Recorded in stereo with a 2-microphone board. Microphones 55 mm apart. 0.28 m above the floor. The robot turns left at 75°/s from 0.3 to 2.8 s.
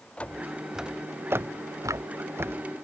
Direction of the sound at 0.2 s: 25° left (ahead or behind).